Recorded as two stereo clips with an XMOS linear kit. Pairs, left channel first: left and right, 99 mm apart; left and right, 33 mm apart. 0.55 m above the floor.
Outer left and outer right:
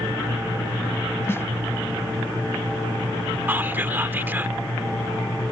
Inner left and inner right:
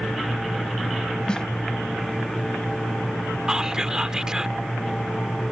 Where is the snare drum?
25° left (ahead or behind).